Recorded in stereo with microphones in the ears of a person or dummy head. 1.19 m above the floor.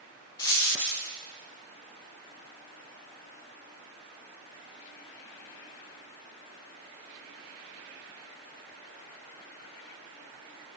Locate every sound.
0.4 s a dropped coin: 5° left (ahead or behind), 0.5 m